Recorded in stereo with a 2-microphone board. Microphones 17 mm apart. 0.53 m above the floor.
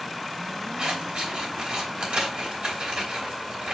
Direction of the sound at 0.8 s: 60° right (ahead or behind).